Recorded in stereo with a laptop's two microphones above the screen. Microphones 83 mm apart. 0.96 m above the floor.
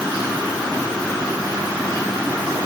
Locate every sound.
Only background noise.